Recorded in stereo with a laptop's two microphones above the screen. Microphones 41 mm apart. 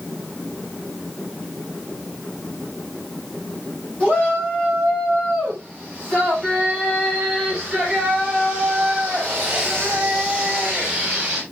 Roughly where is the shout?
Left.